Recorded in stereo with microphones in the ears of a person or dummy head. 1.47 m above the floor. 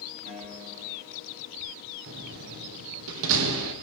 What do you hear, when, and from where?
0.2 s a guitar: 40° right (ahead or behind), 4.5 m
2.1 s a door slam: 75° right (ahead or behind), 1.3 m